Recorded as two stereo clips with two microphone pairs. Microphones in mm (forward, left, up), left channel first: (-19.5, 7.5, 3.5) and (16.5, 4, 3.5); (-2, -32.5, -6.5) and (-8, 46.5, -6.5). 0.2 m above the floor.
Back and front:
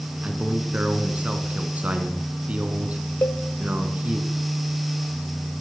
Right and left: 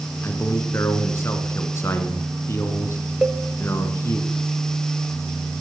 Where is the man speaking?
40° right, 2 m.